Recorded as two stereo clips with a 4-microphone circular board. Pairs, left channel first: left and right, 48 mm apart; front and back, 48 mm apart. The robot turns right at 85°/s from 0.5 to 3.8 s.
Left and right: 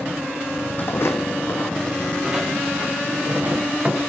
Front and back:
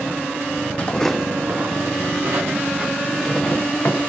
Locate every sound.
0.8 s footsteps: 50° left, 1.1 m; by 4.0 s 30° right, 3 m